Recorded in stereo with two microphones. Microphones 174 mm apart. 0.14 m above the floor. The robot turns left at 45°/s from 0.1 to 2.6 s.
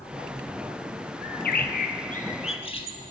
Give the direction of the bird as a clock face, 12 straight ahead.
9 o'clock.